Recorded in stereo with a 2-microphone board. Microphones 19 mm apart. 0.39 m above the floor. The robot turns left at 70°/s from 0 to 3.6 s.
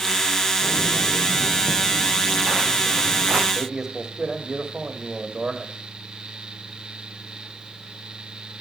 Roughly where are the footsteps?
Left.